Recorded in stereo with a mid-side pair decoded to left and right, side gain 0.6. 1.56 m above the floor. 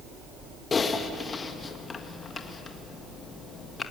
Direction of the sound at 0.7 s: 30° left.